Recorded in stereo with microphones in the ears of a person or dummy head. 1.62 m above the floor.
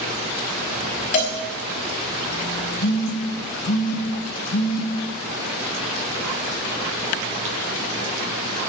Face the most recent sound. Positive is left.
turn(degrees=60)  # may be behind; listen again after turning